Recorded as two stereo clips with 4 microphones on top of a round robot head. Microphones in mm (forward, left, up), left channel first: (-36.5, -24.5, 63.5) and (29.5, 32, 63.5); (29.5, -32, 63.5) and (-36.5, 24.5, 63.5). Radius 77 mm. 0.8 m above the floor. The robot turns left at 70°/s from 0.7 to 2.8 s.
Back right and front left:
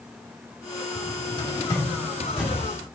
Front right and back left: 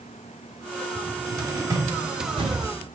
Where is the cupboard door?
135° right, 2.5 m; by 2.7 s 105° left, 2.5 m.